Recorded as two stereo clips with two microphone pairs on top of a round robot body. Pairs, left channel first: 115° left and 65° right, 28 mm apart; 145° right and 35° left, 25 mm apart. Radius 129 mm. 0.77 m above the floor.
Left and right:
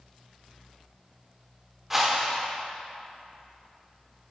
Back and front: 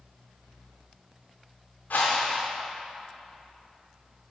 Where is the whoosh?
140° right, 0.6 m.